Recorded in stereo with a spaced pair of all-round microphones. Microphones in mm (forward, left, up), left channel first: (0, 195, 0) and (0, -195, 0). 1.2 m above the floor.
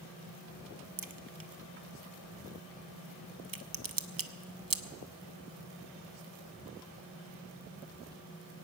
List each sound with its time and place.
1.0 s a crack: 60° right (ahead or behind), 0.6 m